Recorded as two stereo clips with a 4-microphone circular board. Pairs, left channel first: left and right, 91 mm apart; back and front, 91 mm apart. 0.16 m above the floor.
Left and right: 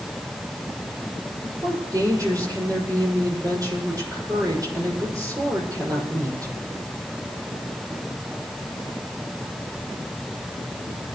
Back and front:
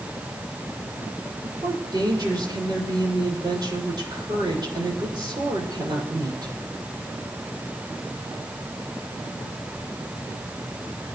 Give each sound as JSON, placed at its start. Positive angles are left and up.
{"t": 1.4, "sound": "a woman speaking", "azimuth_deg": -40, "distance_m": 6.5}